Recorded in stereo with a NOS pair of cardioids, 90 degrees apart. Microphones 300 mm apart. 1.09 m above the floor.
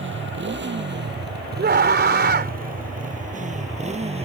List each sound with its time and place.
0.0 s a motorcycle: 40° right; by 4.2 s 20° right
1.6 s a scream: 35° right